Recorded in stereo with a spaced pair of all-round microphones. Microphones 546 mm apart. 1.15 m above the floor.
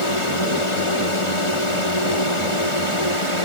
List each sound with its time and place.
0.0 s a drone: 60° left (ahead or behind)